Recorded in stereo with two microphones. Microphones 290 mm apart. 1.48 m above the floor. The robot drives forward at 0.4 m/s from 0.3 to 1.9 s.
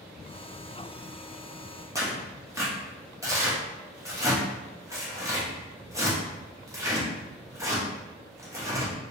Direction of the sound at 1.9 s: 10° right (ahead or behind).